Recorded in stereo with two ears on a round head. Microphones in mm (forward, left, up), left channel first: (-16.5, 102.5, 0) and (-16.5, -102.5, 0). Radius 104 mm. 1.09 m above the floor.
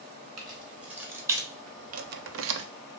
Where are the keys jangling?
Centre (ahead or behind), 2.0 m; by 2.7 s 50° right (ahead or behind), 0.6 m.